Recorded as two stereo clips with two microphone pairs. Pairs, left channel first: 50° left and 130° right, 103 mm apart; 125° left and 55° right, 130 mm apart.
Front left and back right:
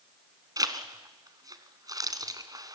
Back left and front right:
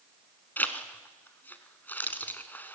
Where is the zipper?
160° right, 1.7 m.